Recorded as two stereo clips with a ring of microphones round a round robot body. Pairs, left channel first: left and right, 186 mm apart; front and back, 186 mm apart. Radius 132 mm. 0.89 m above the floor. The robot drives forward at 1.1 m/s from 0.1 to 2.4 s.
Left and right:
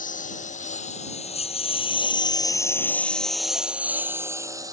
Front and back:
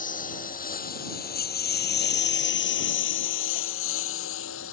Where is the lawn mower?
45° left; by 4.7 s 20° right.